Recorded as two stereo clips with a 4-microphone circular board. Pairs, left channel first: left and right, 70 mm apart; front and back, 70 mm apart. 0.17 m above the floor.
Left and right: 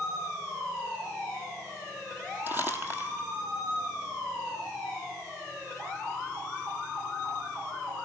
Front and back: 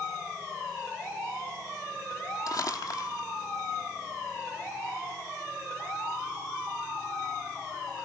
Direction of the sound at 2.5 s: 30° right.